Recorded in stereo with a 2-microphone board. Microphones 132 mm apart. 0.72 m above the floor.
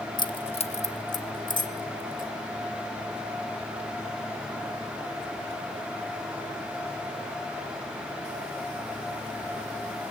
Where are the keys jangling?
30° left (ahead or behind), 0.9 m; by 2.3 s 80° left, 1.9 m.